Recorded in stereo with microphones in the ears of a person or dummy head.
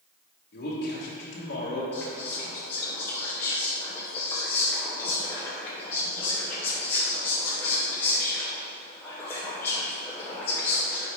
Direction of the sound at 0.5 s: 55° left (ahead or behind).